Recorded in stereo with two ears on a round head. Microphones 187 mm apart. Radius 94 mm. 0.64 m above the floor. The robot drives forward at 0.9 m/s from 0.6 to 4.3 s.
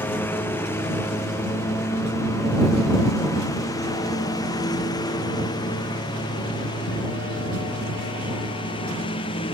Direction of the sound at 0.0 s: 10° left (ahead or behind).